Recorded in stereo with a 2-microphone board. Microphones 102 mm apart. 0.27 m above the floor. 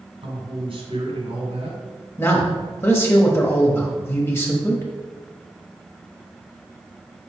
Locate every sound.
0.2 s a man speaking: 65° right (ahead or behind), 2.5 m
2.2 s a man speaking: 25° left (ahead or behind), 1.1 m